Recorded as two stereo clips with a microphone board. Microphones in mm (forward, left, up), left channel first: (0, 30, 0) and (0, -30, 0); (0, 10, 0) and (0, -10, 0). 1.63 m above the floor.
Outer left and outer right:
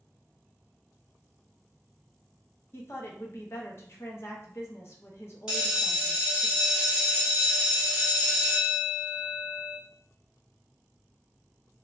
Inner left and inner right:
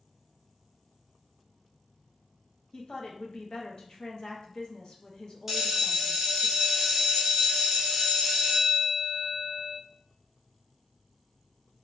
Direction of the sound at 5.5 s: 15° right (ahead or behind).